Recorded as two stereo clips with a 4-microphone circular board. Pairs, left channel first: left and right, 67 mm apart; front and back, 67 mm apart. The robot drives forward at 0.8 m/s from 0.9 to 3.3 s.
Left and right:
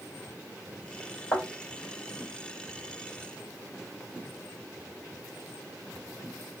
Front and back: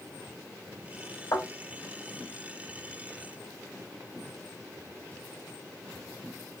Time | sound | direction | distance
1.3 | a thud | 30° left | 2.5 m